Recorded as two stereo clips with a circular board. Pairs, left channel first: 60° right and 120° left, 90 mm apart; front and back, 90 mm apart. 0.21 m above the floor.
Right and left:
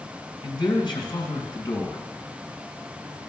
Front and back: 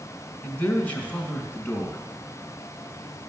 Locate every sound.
0.4 s a man speaking: 70° right, 1.9 m